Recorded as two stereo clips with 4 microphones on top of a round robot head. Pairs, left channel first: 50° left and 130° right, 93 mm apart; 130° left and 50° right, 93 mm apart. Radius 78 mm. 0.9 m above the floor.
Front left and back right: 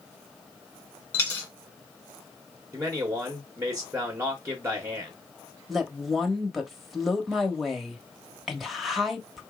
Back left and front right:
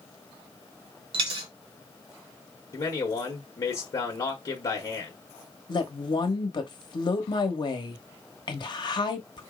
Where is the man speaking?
170° left, 1.2 m.